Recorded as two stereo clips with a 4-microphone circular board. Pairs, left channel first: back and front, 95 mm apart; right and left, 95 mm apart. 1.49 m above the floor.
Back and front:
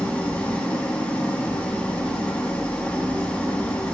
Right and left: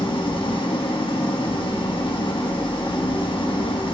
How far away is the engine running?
About 1.5 m.